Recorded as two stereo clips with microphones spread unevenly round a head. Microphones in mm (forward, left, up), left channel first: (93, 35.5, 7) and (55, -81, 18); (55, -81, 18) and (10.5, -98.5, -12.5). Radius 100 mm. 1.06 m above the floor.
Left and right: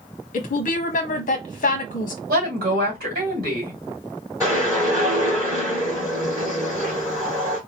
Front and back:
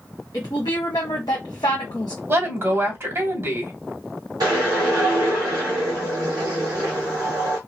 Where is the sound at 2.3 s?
135° right, 2.5 m.